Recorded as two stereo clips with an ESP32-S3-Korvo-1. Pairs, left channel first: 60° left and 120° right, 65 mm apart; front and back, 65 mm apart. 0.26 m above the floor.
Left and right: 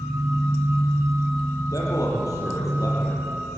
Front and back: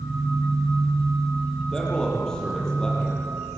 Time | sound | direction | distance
1.7 | a man speaking | 80° left | 7.5 m